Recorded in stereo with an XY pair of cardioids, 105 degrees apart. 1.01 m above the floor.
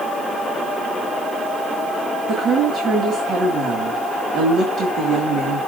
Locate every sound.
2.3 s a woman speaking: 60° right, 2.0 m